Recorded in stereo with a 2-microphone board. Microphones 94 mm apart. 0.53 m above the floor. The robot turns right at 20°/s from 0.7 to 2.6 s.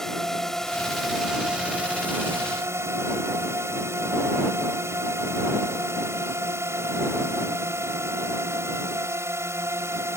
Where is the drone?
175° left; by 10.2 s 150° right.